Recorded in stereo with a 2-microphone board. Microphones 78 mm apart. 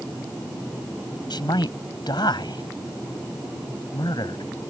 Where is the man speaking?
70° left (ahead or behind).